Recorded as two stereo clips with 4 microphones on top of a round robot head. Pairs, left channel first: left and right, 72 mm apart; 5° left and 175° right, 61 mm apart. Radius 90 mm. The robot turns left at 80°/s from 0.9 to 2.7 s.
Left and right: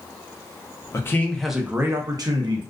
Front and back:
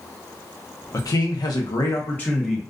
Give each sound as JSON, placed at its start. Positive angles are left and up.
{"t": 0.9, "sound": "a man speaking", "azimuth_deg": 40, "distance_m": 0.7}